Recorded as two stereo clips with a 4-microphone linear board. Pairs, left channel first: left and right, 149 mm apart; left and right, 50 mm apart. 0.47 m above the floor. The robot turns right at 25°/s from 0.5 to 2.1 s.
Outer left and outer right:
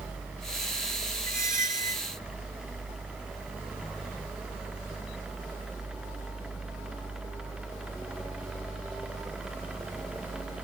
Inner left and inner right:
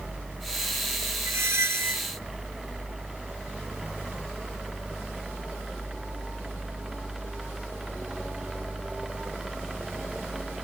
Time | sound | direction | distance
1.3 | a squeak | 70° right (ahead or behind) | ?